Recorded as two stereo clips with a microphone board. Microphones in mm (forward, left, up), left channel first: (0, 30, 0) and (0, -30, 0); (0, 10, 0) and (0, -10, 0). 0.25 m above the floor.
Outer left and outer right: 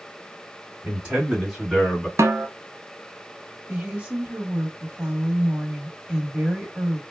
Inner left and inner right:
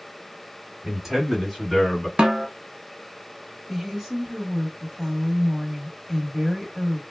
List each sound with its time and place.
0.8 s a man speaking: 20° right (ahead or behind), 1.6 m; by 2.1 s 5° left (ahead or behind), 1.2 m
2.2 s a snare drum: 55° right (ahead or behind), 0.6 m
3.7 s a woman speaking: 20° right (ahead or behind), 1.0 m